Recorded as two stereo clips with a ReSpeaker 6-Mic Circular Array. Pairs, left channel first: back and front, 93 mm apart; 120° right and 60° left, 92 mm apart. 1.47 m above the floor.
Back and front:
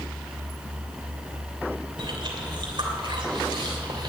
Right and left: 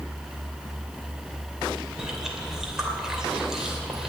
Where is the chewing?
25° right, 2.5 m.